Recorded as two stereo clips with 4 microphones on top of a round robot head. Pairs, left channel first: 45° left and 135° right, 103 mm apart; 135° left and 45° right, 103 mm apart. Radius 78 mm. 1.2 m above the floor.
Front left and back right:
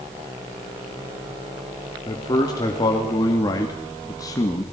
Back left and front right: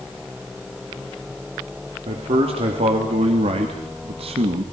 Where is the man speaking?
10° right, 3 m; by 4.6 s 15° right, 1.7 m.